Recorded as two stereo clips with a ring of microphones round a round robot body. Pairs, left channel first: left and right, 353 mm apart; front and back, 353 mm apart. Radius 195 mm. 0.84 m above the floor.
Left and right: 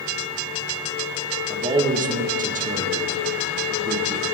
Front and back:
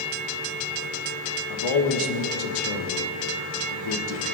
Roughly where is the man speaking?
Ahead.